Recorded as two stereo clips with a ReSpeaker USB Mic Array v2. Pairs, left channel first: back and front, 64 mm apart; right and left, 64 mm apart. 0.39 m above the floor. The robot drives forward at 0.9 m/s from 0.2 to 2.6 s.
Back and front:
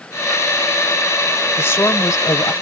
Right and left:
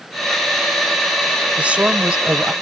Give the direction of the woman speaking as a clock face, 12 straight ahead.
7 o'clock.